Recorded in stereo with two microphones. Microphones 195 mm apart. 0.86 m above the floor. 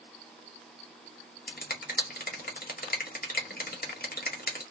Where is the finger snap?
50° left (ahead or behind), 0.9 m.